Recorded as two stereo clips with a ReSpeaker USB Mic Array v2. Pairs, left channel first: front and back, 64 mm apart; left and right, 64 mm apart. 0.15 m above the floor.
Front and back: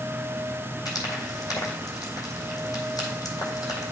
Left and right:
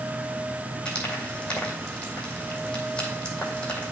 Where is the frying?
15° left, 2 m.